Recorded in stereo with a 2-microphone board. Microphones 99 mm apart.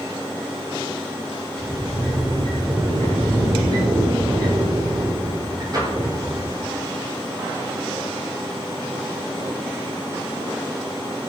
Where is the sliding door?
40° right (ahead or behind), 7.5 m.